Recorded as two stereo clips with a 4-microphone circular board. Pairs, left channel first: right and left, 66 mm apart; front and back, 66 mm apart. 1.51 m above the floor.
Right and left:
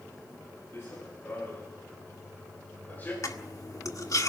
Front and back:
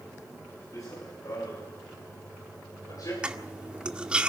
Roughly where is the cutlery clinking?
Right.